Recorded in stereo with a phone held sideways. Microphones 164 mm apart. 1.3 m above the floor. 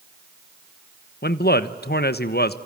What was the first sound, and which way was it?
A man speaking, 75° left (ahead or behind).